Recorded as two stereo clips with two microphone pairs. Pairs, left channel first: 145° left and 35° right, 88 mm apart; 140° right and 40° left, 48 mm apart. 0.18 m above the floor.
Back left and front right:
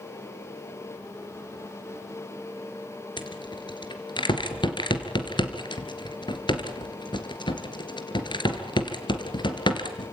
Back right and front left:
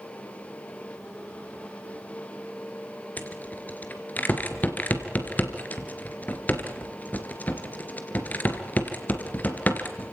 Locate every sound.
3.2 s a rattle: 170° left, 2.5 m